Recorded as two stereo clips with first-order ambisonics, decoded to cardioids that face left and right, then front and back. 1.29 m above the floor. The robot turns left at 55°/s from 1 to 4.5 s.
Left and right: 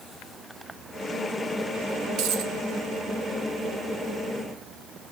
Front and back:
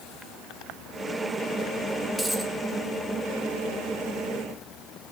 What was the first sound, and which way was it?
A dropped coin, 85° right.